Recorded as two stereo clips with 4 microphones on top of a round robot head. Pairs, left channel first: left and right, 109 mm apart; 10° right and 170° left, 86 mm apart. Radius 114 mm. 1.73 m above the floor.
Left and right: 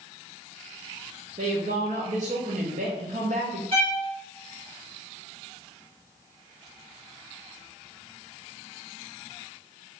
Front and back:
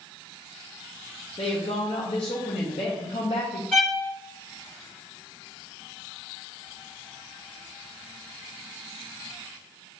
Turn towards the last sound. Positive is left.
turn(degrees=-90)